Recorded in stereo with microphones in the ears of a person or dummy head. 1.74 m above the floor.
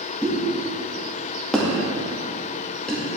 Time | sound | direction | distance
0.2 | a pop | 5° left (ahead or behind) | 2.0 m